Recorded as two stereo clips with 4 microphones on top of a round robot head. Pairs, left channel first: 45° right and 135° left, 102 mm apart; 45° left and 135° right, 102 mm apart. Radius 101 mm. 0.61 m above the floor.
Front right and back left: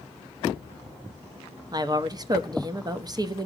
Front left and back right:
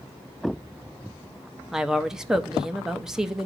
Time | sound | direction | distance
1.7 | a woman speaking | 140° left | 0.9 m